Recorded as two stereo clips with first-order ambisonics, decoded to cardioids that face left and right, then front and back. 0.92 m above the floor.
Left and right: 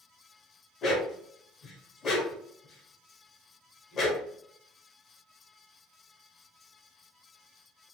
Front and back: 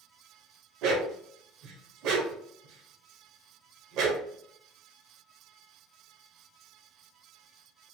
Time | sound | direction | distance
0.8 | a dog barking | 150° left | 1.1 m